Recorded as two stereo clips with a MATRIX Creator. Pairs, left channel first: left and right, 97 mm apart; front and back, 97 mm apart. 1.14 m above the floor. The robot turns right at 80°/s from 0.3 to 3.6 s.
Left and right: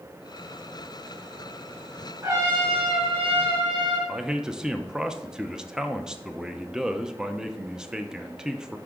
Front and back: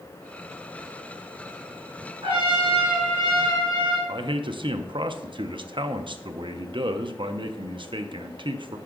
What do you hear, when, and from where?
2.2 s a trumpet: 155° right, 4 m; by 4.0 s 45° right, 4 m
4.1 s a man speaking: 175° right, 0.7 m